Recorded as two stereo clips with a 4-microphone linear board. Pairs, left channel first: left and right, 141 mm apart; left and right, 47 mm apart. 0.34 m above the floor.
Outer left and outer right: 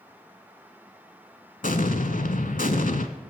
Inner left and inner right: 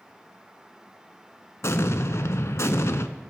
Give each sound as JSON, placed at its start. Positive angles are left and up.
{"t": 1.6, "sound": "an explosion", "side_deg": 85, "distance_m": 0.7}